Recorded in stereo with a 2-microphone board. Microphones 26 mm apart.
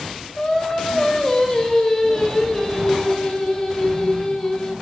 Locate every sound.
0.4 s singing: 20° left (ahead or behind), 2.5 m